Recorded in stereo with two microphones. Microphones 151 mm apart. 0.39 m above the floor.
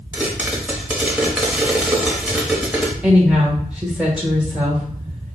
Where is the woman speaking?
10° right (ahead or behind), 1.0 m.